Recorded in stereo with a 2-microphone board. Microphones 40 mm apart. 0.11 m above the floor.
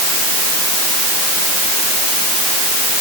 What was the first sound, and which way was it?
Only background noise.